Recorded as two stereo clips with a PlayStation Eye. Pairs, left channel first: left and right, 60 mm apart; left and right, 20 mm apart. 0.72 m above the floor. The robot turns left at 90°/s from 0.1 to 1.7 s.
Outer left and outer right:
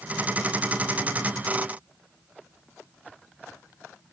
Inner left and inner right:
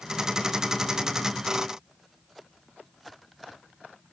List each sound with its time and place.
Only background noise.